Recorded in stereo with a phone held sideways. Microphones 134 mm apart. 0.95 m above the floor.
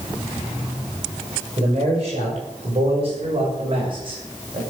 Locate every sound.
1.6 s a man speaking: 50° right (ahead or behind), 6 m; by 4.6 s 40° right (ahead or behind), 5 m